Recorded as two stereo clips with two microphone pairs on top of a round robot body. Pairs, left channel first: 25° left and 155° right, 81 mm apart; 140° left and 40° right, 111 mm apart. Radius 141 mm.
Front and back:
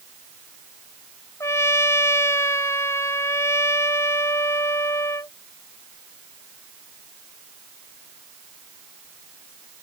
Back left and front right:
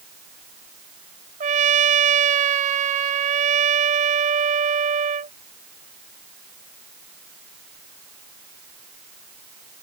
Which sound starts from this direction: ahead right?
A trumpet, at 1.4 s.